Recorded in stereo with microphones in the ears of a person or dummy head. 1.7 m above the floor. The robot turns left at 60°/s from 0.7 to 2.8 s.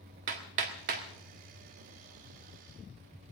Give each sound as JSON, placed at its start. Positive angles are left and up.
{"t": 0.3, "sound": "hammering", "side_deg": -45, "distance_m": 1.5}